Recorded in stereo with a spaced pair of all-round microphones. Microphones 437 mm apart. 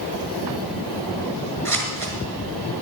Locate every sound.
1.6 s scissors: 40° right (ahead or behind), 3.5 m